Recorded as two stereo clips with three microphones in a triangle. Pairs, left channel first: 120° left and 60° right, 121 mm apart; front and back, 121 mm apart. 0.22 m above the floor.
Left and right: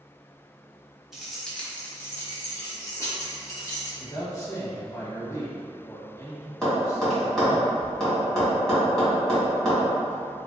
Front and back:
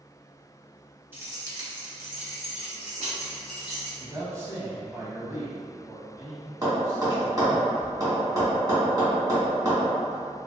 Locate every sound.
1.1 s keys jangling: 140° right, 0.9 m; by 3.9 s 175° left, 2.5 m
4.0 s a man speaking: 140° left, 1.0 m
6.6 s tapping: 155° right, 2.0 m